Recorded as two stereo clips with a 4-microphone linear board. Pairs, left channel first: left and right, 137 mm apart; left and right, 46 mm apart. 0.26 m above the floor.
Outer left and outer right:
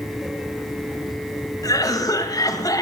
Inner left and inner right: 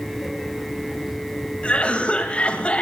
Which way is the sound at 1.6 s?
25° left (ahead or behind).